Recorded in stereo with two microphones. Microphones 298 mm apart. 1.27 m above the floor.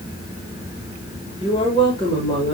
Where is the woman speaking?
15° left (ahead or behind), 3 m.